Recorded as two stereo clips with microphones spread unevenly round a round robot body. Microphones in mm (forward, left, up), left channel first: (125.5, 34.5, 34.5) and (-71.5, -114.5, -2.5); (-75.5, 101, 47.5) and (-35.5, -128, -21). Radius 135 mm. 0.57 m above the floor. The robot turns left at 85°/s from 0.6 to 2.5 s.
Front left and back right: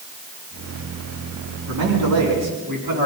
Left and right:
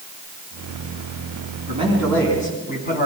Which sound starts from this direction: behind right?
A man speaking, at 1.7 s.